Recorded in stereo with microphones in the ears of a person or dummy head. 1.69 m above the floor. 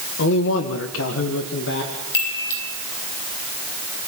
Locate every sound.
0.2 s a man speaking: 65° left (ahead or behind), 1.8 m; by 1.9 s 60° left (ahead or behind), 2.5 m
2.1 s a chime: 65° left (ahead or behind), 2.5 m